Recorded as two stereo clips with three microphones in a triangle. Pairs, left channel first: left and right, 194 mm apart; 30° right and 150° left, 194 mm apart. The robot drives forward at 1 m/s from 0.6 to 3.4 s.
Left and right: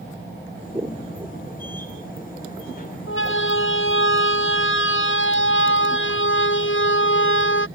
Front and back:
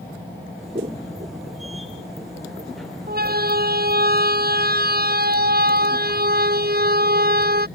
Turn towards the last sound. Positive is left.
turn(degrees=110)